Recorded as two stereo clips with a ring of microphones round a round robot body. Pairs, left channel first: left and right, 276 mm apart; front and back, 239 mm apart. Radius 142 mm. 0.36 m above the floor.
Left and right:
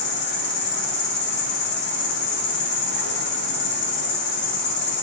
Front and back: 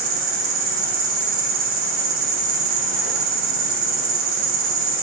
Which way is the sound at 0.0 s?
145° left.